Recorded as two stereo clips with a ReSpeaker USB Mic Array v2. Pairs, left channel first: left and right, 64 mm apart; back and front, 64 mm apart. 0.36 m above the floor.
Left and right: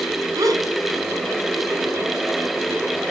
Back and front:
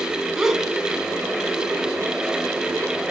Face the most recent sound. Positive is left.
turn(degrees=-80)